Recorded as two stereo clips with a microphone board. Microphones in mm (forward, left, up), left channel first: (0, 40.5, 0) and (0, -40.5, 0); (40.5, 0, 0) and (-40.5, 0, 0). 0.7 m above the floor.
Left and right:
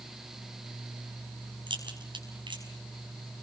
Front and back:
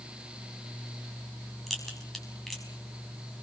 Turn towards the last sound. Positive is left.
turn(degrees=-85)